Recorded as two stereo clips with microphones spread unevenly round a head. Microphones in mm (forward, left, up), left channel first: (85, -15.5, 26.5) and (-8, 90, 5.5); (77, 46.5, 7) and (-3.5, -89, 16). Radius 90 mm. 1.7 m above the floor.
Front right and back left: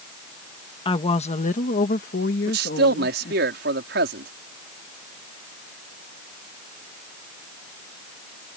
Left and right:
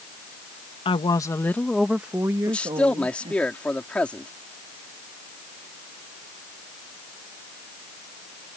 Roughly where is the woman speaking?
Ahead.